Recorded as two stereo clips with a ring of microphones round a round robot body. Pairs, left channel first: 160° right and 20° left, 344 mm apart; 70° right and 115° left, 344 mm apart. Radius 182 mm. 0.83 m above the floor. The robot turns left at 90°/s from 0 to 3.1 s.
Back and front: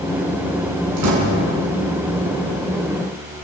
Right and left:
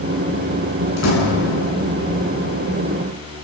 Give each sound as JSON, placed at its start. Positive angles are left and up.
{"t": 1.0, "sound": "a door slam", "azimuth_deg": -5, "distance_m": 8.0}